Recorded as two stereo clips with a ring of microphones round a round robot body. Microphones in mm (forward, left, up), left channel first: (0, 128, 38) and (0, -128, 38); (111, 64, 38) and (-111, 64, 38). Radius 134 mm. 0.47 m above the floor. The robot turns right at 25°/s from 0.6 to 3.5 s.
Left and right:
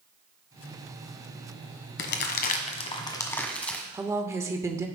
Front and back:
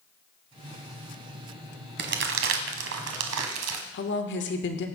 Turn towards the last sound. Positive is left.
turn(degrees=-15)